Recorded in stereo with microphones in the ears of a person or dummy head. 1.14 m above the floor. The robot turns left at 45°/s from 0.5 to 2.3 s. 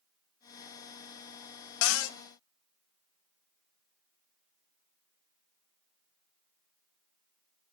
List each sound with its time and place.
1.8 s a cupboard door: 80° left, 0.5 m; by 2.2 s 65° left (ahead or behind), 0.5 m